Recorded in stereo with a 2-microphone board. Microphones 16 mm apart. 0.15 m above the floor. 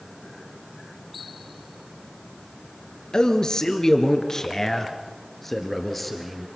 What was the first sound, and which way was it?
A man speaking, 55° left (ahead or behind).